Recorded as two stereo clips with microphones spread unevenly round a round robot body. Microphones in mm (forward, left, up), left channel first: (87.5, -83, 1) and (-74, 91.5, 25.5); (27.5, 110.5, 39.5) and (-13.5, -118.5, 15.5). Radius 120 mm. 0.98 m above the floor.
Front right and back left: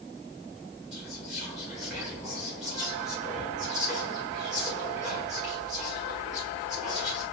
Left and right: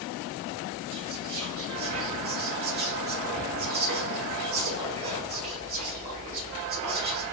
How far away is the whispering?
About 1.6 m.